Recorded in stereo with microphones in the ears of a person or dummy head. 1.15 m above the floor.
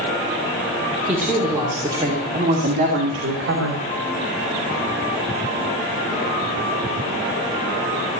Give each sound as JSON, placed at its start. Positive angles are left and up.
{"t": 1.1, "sound": "a woman speaking", "side_deg": 5, "distance_m": 3.5}